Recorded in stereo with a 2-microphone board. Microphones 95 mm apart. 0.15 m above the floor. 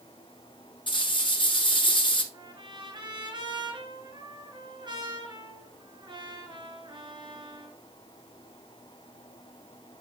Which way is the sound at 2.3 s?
50° right (ahead or behind).